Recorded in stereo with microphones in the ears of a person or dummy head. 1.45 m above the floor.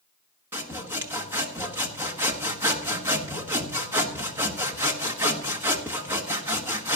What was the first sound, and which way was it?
Sawing, 20° right (ahead or behind).